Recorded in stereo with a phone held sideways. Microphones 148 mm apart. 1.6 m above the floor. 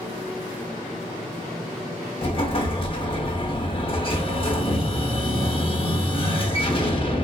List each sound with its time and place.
2.2 s an explosion: 40° left (ahead or behind), 0.6 m